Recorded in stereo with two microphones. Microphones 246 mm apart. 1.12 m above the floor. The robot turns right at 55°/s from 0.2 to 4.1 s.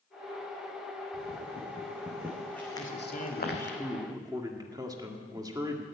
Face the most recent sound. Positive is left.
turn(degrees=-165)